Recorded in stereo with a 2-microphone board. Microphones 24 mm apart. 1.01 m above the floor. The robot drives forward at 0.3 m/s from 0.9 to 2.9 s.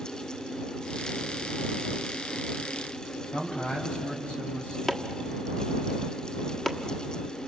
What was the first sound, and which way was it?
A man speaking, 60° left (ahead or behind).